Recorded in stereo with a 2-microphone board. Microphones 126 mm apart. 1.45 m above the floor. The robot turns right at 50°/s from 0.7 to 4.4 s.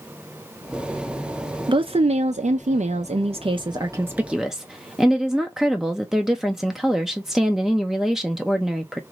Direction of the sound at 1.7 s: 140° right.